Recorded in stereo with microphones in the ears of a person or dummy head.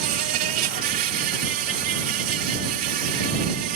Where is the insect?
50° right (ahead or behind).